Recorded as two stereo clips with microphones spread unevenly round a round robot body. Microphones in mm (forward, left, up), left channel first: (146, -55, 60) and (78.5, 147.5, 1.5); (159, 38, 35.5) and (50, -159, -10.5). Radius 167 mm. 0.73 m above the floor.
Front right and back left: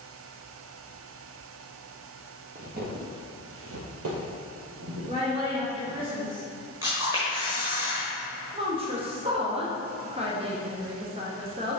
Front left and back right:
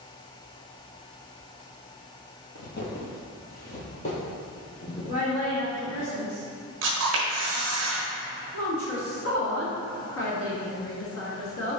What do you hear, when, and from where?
2.5 s footsteps: 55° left, 1.1 m; by 6.1 s 140° left, 2 m
5.1 s a woman speaking: 135° left, 1.3 m
6.8 s a camera shutter: 170° right, 1.0 m
8.5 s a woman speaking: 70° left, 1.4 m